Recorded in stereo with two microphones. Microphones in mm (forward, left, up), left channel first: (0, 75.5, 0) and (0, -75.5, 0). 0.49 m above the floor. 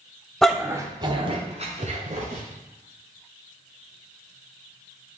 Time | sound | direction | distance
0.4 | a dog barking | 5° left (ahead or behind) | 0.9 m